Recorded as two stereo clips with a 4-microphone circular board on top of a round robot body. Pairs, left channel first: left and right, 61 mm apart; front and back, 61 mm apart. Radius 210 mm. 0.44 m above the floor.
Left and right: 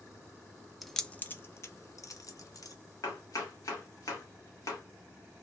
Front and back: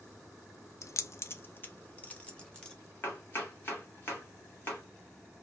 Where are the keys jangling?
Straight ahead, 0.6 m; by 2.8 s 75° left, 1.2 m.